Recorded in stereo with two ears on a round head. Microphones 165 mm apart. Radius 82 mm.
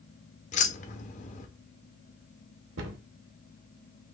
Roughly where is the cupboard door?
Right.